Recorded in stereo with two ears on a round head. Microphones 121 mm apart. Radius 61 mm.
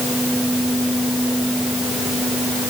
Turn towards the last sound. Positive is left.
No sound to turn to.